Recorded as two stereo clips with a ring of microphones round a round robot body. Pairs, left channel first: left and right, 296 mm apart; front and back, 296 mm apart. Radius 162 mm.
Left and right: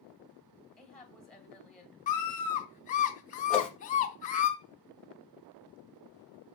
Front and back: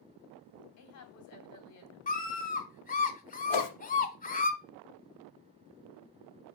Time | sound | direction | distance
0.8 | a woman speaking | 5° left | 1.8 m
2.1 | a scream | 45° left | 1.2 m
3.5 | a whoosh | 5° left | 1.0 m